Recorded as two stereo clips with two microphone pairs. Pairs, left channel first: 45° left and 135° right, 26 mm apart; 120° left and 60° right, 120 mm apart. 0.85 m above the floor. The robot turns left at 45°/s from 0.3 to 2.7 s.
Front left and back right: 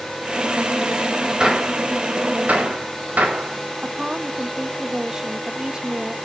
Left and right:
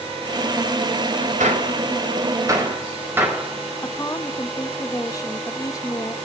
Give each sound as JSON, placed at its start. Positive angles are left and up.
{"t": 1.4, "sound": "a gunshot", "azimuth_deg": -75, "distance_m": 4.5}
{"t": 3.8, "sound": "a woman speaking", "azimuth_deg": 170, "distance_m": 1.1}